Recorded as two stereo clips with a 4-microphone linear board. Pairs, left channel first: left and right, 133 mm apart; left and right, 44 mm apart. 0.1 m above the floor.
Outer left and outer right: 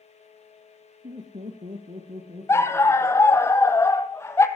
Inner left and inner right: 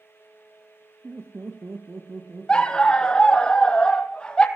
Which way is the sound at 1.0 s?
70° right (ahead or behind).